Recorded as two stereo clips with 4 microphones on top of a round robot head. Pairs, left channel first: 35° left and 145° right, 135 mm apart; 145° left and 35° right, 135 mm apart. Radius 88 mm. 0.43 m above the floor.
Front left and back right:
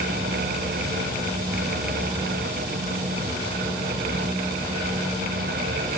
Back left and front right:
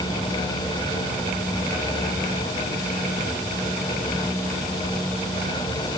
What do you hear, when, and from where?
Only background noise.